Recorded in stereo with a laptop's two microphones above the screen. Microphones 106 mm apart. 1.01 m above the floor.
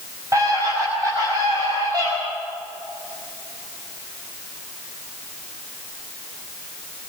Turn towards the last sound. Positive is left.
turn(degrees=-45)  # may be behind; listen again after turning